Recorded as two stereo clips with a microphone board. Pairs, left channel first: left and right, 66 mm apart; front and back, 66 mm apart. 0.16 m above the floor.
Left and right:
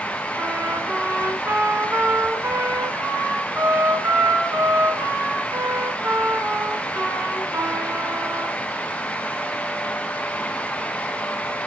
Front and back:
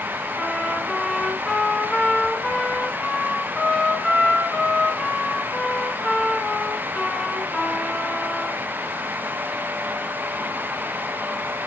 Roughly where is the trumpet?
Right.